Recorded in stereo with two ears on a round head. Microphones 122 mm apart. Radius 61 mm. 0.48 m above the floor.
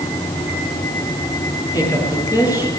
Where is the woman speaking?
25° left (ahead or behind), 9.5 m.